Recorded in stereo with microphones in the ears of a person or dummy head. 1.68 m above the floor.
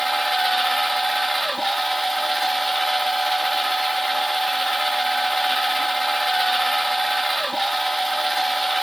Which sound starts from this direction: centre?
A machine running, at 0.0 s.